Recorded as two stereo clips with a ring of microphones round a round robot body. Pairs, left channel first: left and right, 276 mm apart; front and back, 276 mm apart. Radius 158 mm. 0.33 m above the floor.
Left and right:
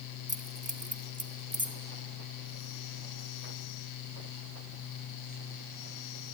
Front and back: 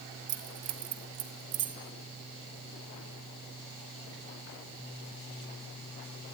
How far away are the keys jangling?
About 2 m.